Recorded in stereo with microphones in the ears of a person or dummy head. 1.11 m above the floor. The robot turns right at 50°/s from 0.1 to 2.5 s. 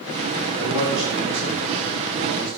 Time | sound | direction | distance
0.6 | a man speaking | 155° right | 1.7 m